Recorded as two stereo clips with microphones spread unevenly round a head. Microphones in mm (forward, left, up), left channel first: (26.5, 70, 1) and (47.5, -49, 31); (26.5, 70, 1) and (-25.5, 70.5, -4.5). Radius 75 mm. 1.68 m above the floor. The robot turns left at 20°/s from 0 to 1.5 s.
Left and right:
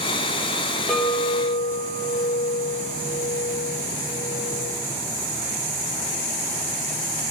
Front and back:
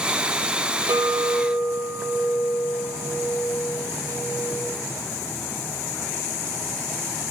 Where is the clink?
165° right, 1.1 m; by 4.6 s straight behind, 1.1 m.